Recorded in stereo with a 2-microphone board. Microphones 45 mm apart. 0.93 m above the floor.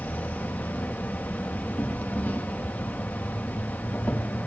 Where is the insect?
40° left (ahead or behind), 0.9 m.